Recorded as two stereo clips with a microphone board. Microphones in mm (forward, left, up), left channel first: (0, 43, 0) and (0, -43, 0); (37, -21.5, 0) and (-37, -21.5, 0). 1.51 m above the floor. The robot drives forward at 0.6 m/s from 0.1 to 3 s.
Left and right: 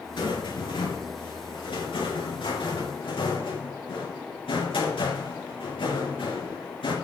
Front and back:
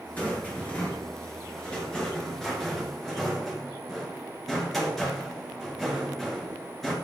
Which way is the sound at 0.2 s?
65° left.